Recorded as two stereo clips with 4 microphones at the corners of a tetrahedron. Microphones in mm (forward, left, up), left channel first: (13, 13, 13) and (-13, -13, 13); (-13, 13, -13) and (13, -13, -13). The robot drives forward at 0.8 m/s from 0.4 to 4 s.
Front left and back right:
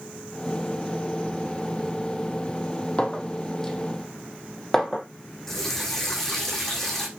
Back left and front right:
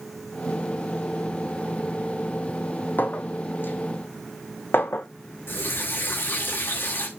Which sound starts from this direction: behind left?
A running tap, at 5.5 s.